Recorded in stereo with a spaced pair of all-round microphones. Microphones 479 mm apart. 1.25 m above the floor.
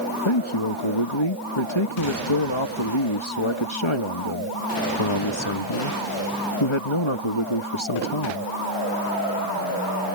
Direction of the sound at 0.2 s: 75° left (ahead or behind).